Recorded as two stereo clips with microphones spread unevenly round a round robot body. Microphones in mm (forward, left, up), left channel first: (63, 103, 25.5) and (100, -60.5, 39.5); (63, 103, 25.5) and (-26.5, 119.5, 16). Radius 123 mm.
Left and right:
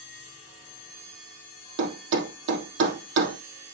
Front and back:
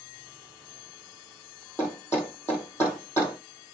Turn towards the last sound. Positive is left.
turn(degrees=-90)